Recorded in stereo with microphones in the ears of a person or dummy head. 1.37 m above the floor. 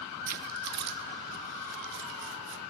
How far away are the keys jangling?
About 0.9 m.